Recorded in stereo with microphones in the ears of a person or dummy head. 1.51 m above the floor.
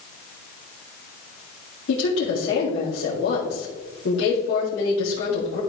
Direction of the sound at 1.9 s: 65° left (ahead or behind).